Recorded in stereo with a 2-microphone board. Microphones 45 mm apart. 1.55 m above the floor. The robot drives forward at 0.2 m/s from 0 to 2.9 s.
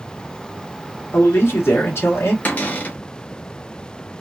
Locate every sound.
1.1 s a man speaking: 70° left (ahead or behind), 1.6 m; by 2.4 s 75° left (ahead or behind), 1.5 m
2.5 s a cupboard door: 45° left (ahead or behind), 1.1 m; by 3.0 s 50° left (ahead or behind), 1.1 m